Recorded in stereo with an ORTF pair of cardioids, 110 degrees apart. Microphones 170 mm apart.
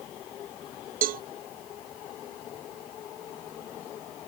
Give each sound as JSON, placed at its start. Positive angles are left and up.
{"t": 1.0, "sound": "a cowbell", "azimuth_deg": -60}